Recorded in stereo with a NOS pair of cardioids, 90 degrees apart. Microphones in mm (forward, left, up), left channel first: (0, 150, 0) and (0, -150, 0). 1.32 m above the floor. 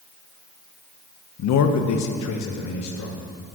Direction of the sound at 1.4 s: 60° left.